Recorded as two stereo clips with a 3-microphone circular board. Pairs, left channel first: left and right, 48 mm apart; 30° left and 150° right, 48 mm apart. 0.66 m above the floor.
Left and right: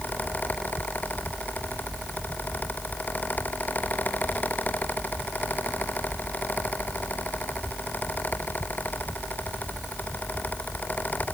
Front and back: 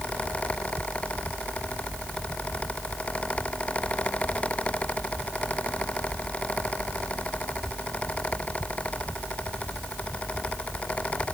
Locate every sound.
Only background noise.